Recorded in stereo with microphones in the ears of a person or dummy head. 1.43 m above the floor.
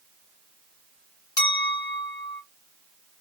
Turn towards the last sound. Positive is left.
turn(degrees=20)  # may be behind; listen again after turning